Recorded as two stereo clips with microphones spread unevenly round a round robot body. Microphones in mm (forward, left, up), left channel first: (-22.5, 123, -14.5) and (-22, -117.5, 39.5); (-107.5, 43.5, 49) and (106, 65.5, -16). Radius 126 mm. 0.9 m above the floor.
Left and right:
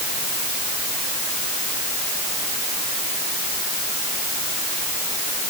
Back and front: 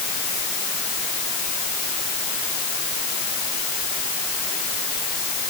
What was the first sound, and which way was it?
Only background noise.